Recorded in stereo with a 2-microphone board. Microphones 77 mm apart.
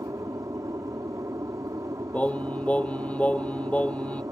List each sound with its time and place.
0.0 s an aircraft: 45° right (ahead or behind)
2.1 s singing: 20° left (ahead or behind)